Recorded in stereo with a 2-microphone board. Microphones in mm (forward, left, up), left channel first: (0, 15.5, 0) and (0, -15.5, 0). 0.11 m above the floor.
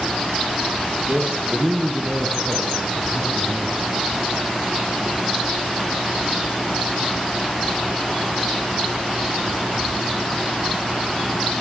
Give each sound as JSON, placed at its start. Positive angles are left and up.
{"t": 1.1, "sound": "a man speaking", "side_deg": -55, "distance_m": 2.5}